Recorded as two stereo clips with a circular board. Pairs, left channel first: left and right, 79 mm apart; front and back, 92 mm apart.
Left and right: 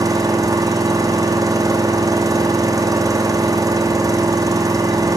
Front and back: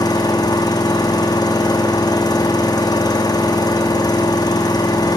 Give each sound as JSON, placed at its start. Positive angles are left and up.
{"t": 0.0, "sound": "an engine running", "azimuth_deg": -45, "distance_m": 1.7}